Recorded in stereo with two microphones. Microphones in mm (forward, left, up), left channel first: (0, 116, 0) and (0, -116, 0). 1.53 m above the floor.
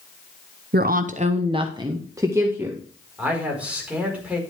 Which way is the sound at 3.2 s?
5° right (ahead or behind).